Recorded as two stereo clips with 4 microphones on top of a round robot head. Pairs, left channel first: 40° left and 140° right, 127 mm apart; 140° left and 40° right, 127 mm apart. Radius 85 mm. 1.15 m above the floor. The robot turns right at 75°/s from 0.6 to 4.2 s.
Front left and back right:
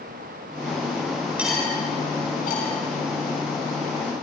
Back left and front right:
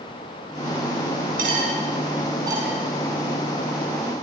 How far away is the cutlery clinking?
About 7 m.